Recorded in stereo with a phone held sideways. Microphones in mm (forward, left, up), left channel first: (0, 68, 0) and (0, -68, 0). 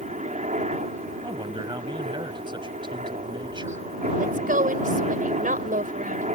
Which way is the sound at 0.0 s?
60° right (ahead or behind).